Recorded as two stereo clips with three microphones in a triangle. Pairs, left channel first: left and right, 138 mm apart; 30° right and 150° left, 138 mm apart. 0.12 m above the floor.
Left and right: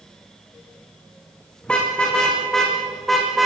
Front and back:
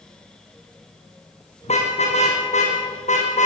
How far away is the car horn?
About 5.5 m.